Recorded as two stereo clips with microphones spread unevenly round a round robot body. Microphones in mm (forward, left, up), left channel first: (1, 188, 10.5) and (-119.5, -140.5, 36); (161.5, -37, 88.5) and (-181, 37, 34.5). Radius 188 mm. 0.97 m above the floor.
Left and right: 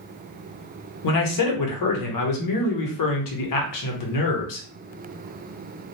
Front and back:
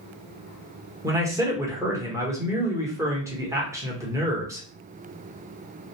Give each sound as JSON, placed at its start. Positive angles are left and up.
{"t": 1.0, "sound": "a man speaking", "azimuth_deg": 90, "distance_m": 0.8}